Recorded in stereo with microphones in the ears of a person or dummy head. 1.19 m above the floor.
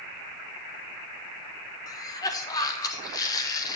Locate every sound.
1.9 s a cough: 20° left (ahead or behind), 1.2 m